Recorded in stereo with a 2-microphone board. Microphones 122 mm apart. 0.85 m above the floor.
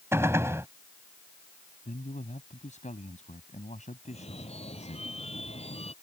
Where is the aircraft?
No aircraft in this recording.